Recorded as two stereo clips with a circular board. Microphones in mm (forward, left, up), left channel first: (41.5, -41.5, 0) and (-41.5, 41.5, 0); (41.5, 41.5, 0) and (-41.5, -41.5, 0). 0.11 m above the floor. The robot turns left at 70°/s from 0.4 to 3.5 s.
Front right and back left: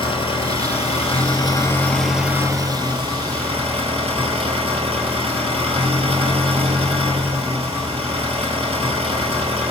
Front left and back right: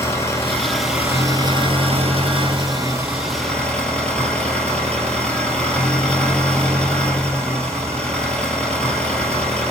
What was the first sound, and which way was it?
An engine running, 20° right.